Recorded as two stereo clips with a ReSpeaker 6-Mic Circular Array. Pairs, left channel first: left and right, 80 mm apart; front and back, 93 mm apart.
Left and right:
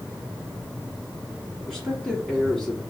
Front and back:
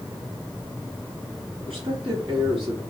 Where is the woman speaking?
170° left, 2.5 m.